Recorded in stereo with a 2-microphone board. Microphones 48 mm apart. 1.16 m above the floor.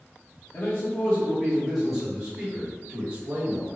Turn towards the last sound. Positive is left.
turn(degrees=-40)  # may be behind; listen again after turning